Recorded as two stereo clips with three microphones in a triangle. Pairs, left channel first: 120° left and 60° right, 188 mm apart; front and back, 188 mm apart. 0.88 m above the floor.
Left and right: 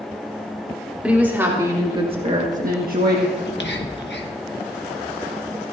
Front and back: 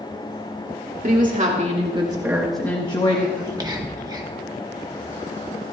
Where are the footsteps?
I don't hear footsteps.